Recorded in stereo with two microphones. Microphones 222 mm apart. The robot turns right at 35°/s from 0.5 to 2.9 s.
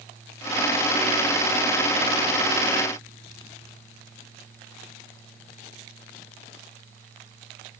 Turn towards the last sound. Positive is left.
No sound to turn to.